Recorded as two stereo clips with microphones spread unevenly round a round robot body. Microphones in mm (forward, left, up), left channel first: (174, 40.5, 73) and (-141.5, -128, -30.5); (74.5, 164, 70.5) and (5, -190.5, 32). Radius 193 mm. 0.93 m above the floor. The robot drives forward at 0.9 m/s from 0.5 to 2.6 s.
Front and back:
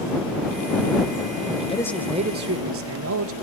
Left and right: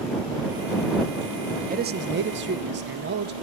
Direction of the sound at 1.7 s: 60° right.